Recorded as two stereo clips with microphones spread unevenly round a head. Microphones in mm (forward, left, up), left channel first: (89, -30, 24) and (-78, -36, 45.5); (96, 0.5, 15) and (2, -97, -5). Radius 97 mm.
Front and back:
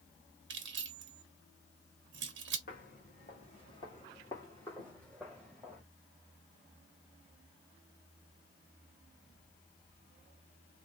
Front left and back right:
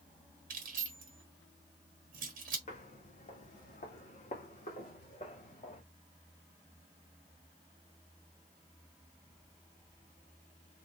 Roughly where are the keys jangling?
Behind.